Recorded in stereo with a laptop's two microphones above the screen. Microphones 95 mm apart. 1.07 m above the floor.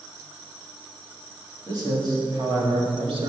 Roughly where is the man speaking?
Right.